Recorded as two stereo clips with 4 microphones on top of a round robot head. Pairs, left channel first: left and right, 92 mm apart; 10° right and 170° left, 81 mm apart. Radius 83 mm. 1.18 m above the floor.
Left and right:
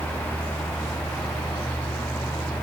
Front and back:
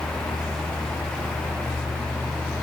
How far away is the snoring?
I don't hear snoring.